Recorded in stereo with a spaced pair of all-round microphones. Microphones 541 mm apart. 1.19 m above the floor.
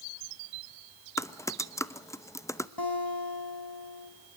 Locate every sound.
1.2 s typing on a keyboard: 5° left (ahead or behind), 0.7 m
2.8 s a guitar: 45° left (ahead or behind), 4.5 m